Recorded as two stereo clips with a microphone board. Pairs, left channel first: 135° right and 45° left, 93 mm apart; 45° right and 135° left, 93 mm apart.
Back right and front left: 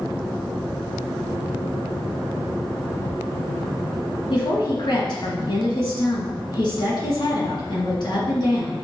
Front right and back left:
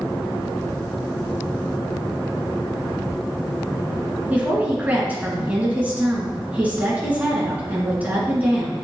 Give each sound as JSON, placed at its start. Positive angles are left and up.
{"t": 4.3, "sound": "a woman speaking", "azimuth_deg": -155, "distance_m": 2.5}